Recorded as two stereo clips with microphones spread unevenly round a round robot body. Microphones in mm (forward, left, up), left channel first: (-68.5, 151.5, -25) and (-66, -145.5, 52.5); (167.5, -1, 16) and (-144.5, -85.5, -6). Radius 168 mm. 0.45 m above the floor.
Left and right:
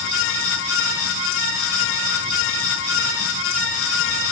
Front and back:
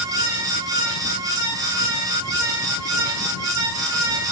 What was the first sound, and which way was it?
Only background noise.